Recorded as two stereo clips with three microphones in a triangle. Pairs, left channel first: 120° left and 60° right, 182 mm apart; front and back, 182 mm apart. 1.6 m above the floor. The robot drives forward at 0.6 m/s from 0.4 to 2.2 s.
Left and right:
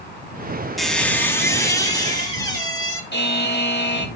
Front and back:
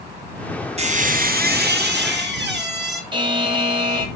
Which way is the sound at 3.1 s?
115° left.